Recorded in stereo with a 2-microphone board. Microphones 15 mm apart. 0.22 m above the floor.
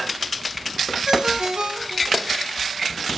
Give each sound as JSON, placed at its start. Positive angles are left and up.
{"t": 1.1, "sound": "a ringtone", "side_deg": -65, "distance_m": 1.8}